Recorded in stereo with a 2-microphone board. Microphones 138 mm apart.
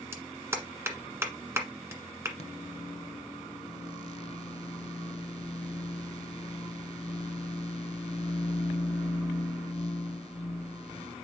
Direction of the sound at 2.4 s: 45° left (ahead or behind).